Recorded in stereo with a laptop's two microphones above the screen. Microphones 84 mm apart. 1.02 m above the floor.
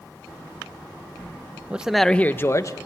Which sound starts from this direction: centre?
A man speaking, at 1.7 s.